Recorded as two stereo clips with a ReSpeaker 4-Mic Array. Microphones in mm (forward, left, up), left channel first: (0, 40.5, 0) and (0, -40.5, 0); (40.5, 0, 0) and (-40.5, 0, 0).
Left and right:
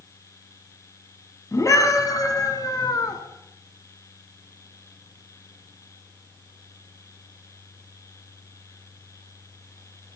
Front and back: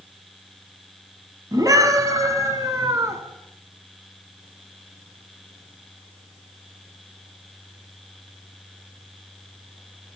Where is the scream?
140° left, 4 m; by 3.2 s 130° left, 5 m.